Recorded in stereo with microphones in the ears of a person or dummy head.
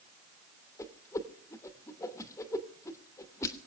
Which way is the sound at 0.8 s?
15° left (ahead or behind).